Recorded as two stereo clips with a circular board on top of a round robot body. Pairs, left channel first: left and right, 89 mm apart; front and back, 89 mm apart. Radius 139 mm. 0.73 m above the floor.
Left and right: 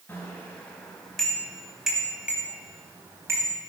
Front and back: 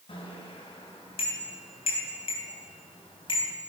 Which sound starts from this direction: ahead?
A bicycle bell, at 0.1 s.